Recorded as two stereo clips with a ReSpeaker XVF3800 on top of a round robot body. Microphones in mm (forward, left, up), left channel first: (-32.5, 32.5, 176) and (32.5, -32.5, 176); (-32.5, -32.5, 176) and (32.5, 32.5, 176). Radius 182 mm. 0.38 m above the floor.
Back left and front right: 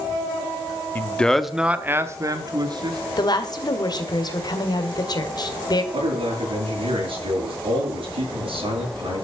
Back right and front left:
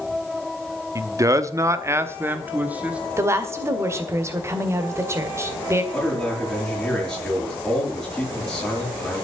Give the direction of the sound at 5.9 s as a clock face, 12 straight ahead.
2 o'clock.